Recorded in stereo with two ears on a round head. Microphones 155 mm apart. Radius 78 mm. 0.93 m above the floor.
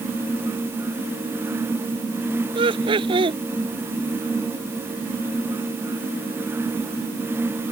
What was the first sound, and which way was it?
Laughter, 30° right (ahead or behind).